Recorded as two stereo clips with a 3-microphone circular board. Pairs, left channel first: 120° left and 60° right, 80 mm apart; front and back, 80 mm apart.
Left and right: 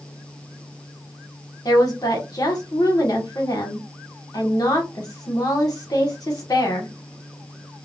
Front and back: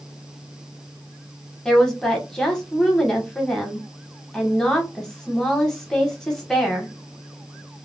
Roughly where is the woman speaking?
Left.